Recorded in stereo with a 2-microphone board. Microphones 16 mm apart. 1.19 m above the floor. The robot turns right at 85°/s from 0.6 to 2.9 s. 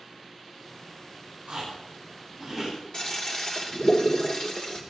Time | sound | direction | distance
1.5 | chewing | 80° right | 9.5 m
2.9 | a toilet flushing | 40° left (ahead or behind) | 2.5 m